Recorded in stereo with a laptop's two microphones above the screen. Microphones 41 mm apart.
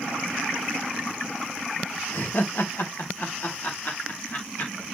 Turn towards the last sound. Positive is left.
turn(degrees=50)  # may be behind; listen again after turning